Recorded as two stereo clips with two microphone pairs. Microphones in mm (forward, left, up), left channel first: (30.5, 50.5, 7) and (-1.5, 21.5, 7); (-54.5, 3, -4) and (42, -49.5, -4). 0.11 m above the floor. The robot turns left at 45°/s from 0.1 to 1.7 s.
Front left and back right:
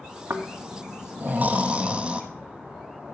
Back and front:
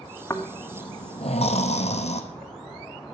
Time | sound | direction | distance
0.3 | snoring | 140° right | 1.1 m